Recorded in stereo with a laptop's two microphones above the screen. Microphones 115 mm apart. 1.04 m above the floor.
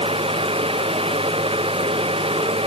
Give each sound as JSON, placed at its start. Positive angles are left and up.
{"t": 0.0, "sound": "a fan", "side_deg": -55}